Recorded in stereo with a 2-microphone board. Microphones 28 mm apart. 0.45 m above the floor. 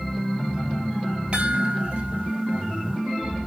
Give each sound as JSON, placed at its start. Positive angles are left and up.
{"t": 1.3, "sound": "a chime", "side_deg": -45, "distance_m": 2.5}